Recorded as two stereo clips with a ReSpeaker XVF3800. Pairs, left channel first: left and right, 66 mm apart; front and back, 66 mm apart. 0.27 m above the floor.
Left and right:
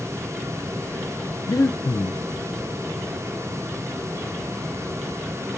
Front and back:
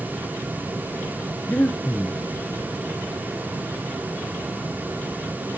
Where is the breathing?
60° left, 1.1 m.